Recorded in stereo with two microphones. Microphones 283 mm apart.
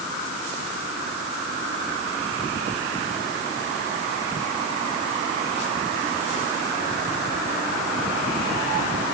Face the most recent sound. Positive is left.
No sound to turn to.